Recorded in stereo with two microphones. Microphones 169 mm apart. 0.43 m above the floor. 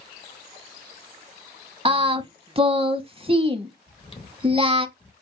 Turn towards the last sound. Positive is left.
turn(degrees=35)  # may be behind; listen again after turning